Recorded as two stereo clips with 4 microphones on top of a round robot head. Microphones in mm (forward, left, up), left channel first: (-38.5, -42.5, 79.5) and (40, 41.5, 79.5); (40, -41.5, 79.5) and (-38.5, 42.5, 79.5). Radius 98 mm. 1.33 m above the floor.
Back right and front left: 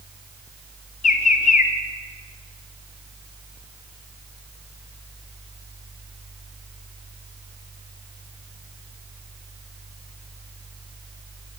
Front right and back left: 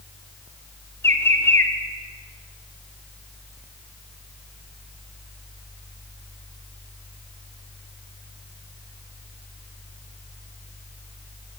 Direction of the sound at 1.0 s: 120° right.